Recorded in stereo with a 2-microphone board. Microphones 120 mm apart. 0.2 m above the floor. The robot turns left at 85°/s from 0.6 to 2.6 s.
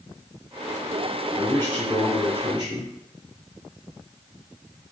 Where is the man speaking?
55° left, 1.8 m; by 2.9 s 50° right, 1.8 m.